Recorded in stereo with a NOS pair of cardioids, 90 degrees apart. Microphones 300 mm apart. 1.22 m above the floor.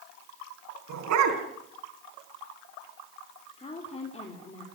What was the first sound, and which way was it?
A dog barking, 70° right.